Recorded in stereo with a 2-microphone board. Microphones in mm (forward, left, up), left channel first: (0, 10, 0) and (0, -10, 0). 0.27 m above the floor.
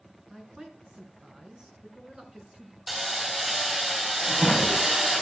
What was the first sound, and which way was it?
A man speaking, 40° right (ahead or behind).